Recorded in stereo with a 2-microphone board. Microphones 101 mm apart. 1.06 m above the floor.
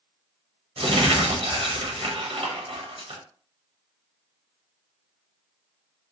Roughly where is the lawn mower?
I don't hear a lawn mower.